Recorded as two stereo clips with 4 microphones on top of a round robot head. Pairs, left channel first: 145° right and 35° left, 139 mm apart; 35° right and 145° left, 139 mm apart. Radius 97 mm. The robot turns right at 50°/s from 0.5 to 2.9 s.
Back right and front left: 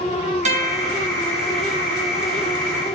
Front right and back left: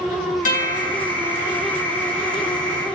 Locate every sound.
0.5 s a guitar: 5° right, 6 m; by 0.9 s 15° left, 6 m